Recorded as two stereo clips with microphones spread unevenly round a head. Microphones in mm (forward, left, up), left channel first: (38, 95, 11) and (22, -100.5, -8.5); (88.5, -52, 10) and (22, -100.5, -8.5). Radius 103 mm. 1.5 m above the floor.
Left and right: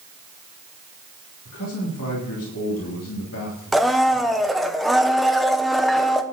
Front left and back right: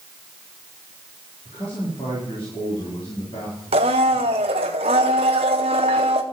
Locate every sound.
1.4 s a man speaking: 85° left, 3.5 m
3.7 s a blender: 175° left, 0.7 m